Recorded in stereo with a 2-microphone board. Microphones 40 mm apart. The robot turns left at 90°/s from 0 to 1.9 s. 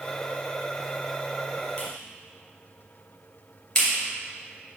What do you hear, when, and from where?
1.8 s a clap: 30° left (ahead or behind), 2.5 m; by 4.8 s 20° left (ahead or behind), 2.5 m